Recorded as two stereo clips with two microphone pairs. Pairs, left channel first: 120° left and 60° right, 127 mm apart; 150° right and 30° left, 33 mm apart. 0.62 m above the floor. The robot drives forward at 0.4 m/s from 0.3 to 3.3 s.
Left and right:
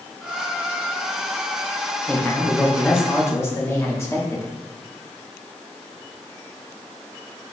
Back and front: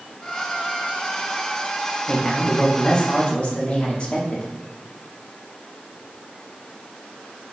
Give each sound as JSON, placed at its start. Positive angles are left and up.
{"t": 2.1, "sound": "a man speaking", "azimuth_deg": 180, "distance_m": 0.7}